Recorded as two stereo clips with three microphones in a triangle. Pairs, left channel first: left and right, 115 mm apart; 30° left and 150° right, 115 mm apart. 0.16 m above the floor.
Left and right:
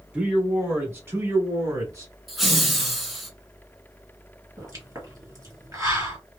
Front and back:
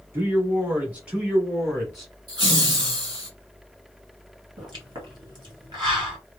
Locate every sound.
0.1 s a man speaking: 150° right, 1.3 m; by 2.1 s 60° right, 1.5 m
2.3 s laughter: straight behind, 1.4 m
4.6 s a pop: 135° right, 2.0 m